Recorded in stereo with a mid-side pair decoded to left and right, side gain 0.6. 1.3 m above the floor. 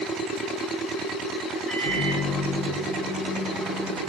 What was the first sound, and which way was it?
A microwave, 5° right.